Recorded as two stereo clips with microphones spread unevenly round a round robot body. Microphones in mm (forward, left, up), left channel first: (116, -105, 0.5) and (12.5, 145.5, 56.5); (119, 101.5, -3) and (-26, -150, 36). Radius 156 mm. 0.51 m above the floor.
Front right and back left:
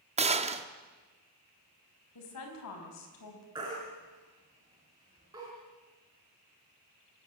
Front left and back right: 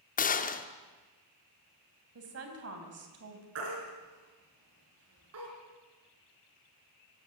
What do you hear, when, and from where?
0.2 s a gunshot: 45° left, 1.2 m
2.1 s a woman speaking: 80° right, 4 m
3.5 s a baby crying: 170° right, 4.5 m